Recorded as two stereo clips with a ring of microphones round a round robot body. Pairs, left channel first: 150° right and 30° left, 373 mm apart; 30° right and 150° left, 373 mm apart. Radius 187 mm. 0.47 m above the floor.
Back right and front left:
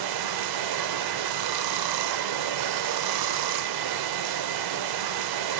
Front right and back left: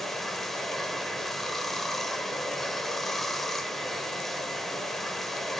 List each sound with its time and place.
0.0 s running water: 60° left, 0.9 m